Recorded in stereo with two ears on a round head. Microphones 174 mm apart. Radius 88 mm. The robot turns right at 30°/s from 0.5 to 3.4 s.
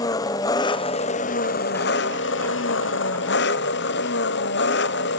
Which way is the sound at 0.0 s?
20° left.